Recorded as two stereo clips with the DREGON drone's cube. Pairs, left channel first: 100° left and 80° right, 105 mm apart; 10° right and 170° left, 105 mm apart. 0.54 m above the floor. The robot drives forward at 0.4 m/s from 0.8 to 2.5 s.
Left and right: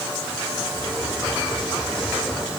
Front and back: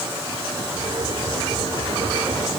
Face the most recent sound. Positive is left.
No sound to turn to.